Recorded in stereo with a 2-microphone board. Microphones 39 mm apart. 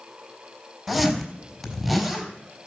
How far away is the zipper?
About 4 m.